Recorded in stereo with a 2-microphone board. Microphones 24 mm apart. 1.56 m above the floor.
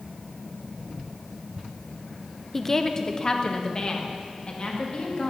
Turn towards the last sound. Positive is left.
turn(degrees=45)  # may be behind; listen again after turning